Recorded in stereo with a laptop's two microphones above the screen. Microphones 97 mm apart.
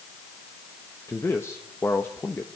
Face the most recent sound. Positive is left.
turn(degrees=25)  # may be behind; listen again after turning